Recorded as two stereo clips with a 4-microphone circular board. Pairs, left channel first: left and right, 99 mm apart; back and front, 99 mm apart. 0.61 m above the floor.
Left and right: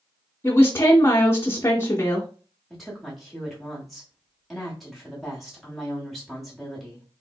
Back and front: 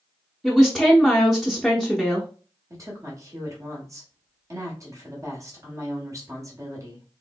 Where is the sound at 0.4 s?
90° left, 0.5 m.